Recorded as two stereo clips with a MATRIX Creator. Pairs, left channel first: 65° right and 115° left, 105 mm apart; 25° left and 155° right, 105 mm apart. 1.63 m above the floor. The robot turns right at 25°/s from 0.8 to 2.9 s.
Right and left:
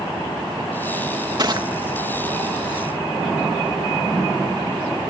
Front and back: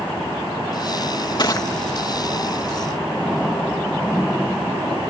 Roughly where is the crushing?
Ahead left.